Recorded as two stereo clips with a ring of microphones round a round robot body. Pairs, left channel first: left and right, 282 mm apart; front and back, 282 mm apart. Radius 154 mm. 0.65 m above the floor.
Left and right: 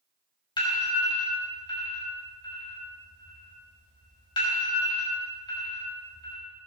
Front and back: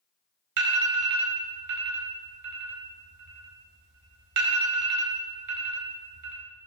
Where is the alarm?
165° left, 4.5 m.